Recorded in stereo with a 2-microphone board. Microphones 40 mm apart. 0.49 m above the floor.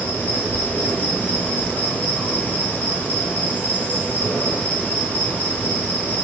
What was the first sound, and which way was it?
An insect, 40° left (ahead or behind).